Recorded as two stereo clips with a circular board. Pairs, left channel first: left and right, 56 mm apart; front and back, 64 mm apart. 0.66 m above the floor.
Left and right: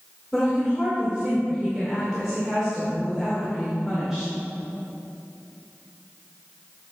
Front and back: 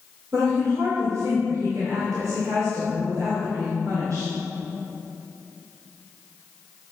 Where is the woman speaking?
170° right, 2.5 m.